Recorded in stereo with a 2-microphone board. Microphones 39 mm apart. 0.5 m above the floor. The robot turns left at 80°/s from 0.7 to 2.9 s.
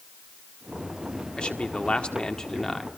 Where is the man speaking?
25° left (ahead or behind), 1.5 m; by 2.9 s centre (ahead or behind), 1.5 m.